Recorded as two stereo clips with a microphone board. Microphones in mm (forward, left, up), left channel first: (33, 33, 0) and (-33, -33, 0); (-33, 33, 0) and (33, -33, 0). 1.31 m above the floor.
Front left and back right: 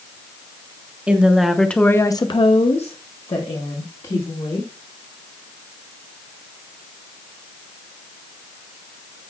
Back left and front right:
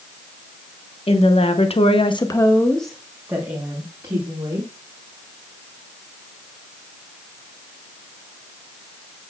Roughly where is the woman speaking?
Behind left.